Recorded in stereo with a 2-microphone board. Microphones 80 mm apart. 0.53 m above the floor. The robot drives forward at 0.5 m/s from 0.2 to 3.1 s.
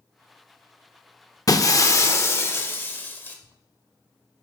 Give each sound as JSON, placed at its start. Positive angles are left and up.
{"t": 1.5, "sound": "breaking glass", "side_deg": 45, "distance_m": 0.7}